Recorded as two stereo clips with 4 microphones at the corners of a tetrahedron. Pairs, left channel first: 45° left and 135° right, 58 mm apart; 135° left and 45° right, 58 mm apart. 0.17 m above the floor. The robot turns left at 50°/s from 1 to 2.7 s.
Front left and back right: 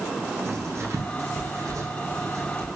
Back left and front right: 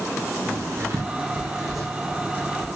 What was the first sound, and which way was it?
Writing, 95° right.